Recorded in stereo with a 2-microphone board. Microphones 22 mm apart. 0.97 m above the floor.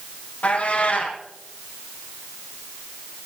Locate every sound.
0.4 s a cat meowing: 75° left (ahead or behind), 4 m